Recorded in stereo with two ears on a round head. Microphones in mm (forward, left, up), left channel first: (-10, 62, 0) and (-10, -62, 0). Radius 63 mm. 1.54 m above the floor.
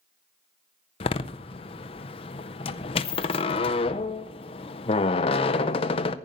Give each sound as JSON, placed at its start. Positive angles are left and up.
{"t": 1.0, "sound": "a door slam", "side_deg": 40, "distance_m": 0.6}